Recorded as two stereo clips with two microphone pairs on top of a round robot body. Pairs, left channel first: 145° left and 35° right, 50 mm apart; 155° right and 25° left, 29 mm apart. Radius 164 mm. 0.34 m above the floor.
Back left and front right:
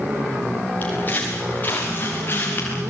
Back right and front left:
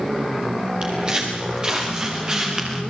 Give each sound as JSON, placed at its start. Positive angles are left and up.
{"t": 0.8, "sound": "footsteps", "azimuth_deg": 90, "distance_m": 5.5}